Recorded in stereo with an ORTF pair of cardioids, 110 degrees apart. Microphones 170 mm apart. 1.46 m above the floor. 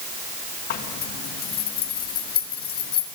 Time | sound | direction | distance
0.7 | a zipper | 65° left | 1.8 m